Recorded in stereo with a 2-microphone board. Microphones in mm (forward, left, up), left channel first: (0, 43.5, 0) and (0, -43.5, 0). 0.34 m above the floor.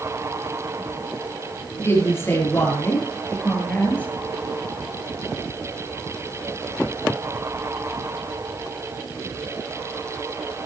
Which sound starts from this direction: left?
A woman speaking, at 1.8 s.